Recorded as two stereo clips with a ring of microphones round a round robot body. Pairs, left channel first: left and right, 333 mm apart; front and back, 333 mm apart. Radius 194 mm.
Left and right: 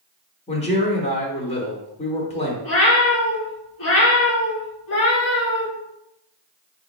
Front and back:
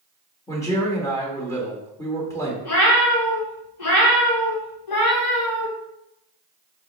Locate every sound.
0.5 s a man speaking: 65° left, 1.0 m
2.6 s a cat meowing: 35° left, 1.0 m